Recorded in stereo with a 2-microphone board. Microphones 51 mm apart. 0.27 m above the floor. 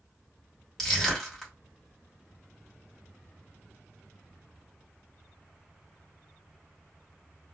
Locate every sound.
0.8 s crushing: 5° left (ahead or behind), 1.5 m